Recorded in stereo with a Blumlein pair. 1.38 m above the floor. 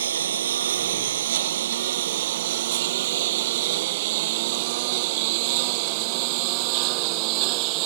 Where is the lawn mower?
65° right; by 7.9 s 45° right.